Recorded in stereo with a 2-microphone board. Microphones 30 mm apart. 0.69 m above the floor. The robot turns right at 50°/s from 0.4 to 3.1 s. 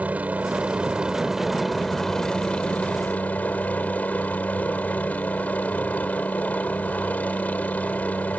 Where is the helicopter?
65° right; by 8.4 s 70° left.